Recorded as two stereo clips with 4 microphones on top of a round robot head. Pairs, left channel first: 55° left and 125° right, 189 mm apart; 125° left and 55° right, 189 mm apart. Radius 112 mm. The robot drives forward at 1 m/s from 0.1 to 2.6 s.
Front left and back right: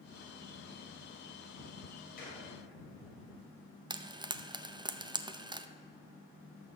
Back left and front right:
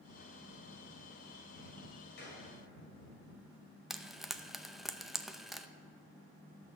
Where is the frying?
140° right, 0.7 m.